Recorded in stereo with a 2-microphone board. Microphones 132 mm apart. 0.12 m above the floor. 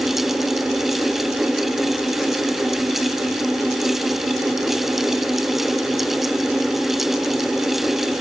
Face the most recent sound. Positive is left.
No sound to turn to.